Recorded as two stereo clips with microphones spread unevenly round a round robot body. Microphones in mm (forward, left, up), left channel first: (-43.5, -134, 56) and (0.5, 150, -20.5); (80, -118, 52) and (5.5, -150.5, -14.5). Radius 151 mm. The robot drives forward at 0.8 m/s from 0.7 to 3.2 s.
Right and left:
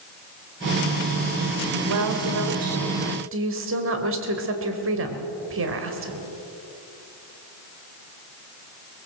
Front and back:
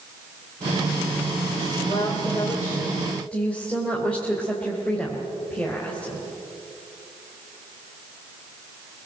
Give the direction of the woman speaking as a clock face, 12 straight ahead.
9 o'clock.